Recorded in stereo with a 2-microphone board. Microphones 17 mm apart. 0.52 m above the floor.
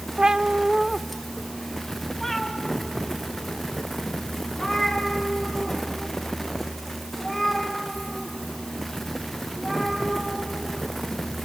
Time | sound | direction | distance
0.2 | a cat meowing | 60° right (ahead or behind) | 0.6 m